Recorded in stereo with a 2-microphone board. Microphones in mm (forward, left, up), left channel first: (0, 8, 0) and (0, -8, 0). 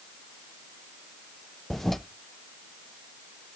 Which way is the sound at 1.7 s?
10° left (ahead or behind).